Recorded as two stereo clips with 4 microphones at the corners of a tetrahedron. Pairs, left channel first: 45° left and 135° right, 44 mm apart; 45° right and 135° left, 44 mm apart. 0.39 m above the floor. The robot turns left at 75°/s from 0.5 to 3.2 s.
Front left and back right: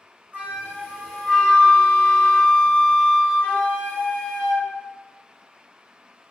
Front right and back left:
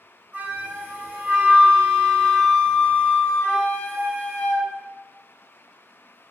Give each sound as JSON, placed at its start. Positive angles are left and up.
{"t": 0.3, "sound": "a flute", "azimuth_deg": 180, "distance_m": 1.7}